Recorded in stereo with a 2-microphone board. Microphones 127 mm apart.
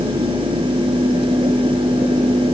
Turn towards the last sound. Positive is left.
No sound to turn to.